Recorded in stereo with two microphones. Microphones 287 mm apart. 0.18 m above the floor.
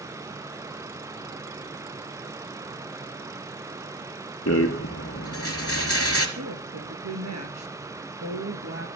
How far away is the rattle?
About 2.5 m.